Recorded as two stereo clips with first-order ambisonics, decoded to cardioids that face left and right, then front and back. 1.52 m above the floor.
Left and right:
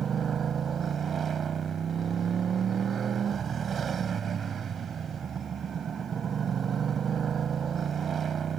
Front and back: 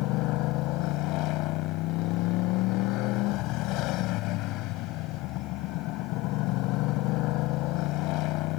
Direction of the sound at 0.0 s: 25° right.